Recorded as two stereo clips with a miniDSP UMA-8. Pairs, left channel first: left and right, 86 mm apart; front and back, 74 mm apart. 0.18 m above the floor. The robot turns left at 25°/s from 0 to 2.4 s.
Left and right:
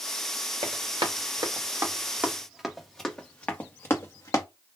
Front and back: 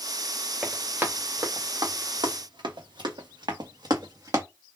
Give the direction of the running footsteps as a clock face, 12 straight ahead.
3 o'clock.